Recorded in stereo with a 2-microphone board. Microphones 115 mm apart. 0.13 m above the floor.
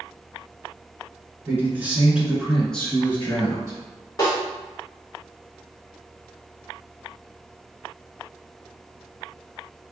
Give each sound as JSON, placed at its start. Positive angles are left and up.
{"t": 1.5, "sound": "a man speaking", "side_deg": -25, "distance_m": 1.4}
{"t": 4.2, "sound": "a snare drum", "side_deg": 35, "distance_m": 1.6}